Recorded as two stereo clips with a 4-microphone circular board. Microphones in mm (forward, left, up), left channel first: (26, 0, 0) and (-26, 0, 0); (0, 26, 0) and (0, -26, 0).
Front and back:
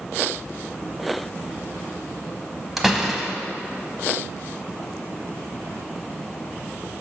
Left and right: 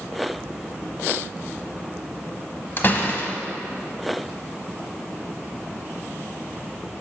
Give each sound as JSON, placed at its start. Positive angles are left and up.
{"t": 2.8, "sound": "a door slam", "azimuth_deg": 95, "distance_m": 0.8}